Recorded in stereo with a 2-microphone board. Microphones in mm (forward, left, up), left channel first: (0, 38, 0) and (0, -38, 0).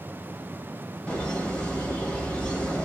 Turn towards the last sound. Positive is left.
turn(degrees=15)  # may be behind; listen again after turning